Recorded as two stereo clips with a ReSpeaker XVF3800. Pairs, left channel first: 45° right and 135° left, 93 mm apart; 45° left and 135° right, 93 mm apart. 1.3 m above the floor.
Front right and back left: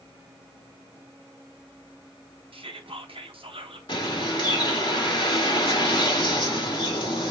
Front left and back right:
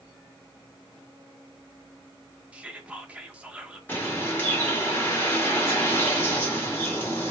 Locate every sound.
2.5 s whispering: 150° left, 0.9 m
3.9 s a bird: 25° right, 1.6 m